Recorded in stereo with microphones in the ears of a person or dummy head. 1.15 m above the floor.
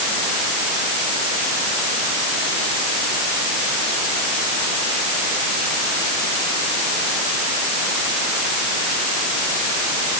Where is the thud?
No thud in this recording.